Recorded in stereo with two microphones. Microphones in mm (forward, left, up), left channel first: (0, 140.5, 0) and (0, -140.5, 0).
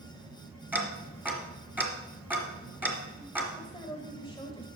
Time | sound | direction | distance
0.7 | ticking | 5° right (ahead or behind) | 1.3 m
3.6 | a woman speaking | 15° left (ahead or behind) | 1.0 m